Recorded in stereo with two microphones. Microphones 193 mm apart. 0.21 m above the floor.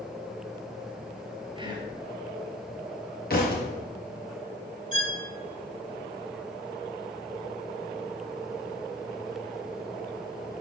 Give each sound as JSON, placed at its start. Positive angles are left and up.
{"t": 1.6, "sound": "whispering", "side_deg": -25, "distance_m": 3.5}
{"t": 3.3, "sound": "a thud", "side_deg": 55, "distance_m": 4.0}
{"t": 4.9, "sound": "a violin", "side_deg": -40, "distance_m": 1.9}